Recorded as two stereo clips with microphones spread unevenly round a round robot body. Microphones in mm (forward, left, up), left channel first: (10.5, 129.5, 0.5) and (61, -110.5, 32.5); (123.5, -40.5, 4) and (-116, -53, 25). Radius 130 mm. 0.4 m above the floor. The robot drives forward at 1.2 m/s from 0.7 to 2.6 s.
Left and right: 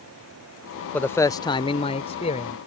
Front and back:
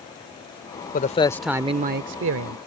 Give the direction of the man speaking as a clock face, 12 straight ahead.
11 o'clock.